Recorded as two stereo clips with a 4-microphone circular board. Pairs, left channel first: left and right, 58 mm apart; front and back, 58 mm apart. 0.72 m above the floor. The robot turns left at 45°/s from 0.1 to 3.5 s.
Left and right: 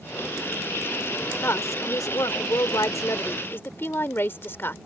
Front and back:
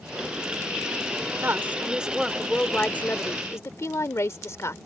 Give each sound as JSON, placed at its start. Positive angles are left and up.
{"t": 1.4, "sound": "a woman speaking", "azimuth_deg": 135}